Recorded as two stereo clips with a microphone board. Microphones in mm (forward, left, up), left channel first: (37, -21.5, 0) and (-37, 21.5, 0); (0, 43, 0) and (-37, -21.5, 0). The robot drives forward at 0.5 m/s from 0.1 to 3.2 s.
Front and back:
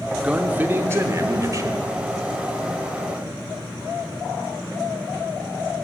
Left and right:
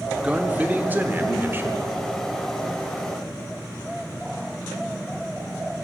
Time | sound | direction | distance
0.2 | a man speaking | 155° right | 0.7 m